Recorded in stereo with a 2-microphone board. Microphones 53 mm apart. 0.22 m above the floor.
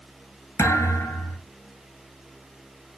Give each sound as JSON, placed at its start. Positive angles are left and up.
{"t": 0.6, "sound": "a thud", "side_deg": 65, "distance_m": 1.1}